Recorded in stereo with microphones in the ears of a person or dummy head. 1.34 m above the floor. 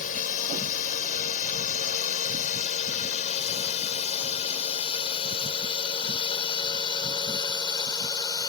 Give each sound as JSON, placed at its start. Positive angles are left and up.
{"t": 0.0, "sound": "a drone", "side_deg": 40}